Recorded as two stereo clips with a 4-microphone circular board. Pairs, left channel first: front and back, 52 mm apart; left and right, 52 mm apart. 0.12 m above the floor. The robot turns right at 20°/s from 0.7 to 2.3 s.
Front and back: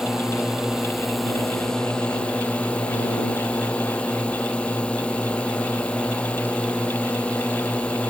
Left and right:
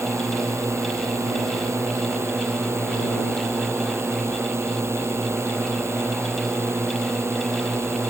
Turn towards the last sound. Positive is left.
turn(degrees=-65)